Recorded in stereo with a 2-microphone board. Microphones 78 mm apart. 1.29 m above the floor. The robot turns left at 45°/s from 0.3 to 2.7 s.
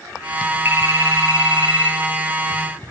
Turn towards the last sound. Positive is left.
turn(degrees=-130)